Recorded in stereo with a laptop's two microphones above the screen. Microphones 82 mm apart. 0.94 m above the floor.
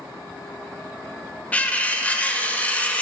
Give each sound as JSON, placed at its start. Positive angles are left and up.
{"t": 1.5, "sound": "cutlery clinking", "side_deg": 15, "distance_m": 0.6}